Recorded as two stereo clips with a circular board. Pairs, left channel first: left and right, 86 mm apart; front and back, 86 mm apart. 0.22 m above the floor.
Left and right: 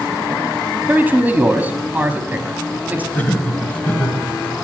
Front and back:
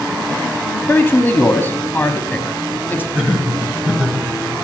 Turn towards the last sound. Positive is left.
turn(degrees=130)